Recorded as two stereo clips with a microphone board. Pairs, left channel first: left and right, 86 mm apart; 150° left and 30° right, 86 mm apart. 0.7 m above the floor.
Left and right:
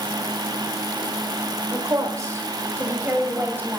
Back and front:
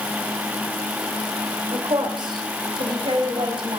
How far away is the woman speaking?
About 2.0 m.